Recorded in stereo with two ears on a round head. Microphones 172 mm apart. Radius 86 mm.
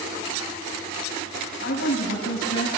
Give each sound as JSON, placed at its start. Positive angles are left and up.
{"t": 1.6, "sound": "a woman speaking", "side_deg": 80, "distance_m": 4.5}